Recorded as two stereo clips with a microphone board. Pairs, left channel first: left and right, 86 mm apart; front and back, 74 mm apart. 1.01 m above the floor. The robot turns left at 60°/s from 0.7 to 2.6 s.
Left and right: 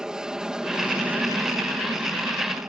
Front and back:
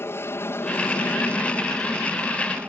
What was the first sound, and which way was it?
An aircraft, 15° right.